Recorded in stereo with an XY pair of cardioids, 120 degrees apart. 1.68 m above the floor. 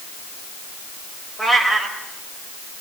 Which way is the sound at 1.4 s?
5° left.